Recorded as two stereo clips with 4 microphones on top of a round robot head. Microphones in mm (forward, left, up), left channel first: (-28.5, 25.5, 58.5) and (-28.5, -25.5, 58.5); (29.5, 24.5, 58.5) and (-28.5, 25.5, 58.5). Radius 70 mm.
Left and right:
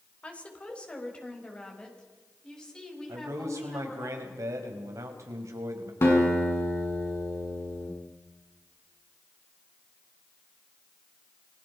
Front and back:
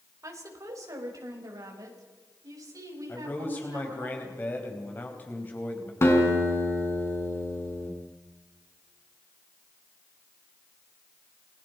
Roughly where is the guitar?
Ahead left.